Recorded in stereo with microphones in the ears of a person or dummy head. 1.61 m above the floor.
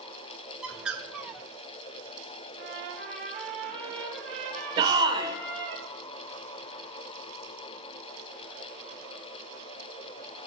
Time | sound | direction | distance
0.6 | a bird | centre (ahead or behind) | 0.7 m
2.6 | a trumpet | 5° left (ahead or behind) | 4.5 m
4.8 | a shout | 25° right (ahead or behind) | 1.2 m